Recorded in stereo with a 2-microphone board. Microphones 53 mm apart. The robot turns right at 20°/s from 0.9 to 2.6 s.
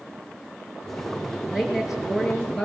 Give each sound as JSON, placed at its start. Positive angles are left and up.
{"t": 1.5, "sound": "a woman speaking", "side_deg": -10, "distance_m": 6.0}